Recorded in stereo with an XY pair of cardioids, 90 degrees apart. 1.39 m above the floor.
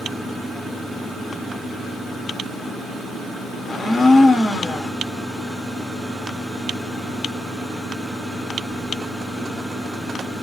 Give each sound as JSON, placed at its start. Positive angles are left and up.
{"t": 3.6, "sound": "a blender", "azimuth_deg": 40, "distance_m": 0.7}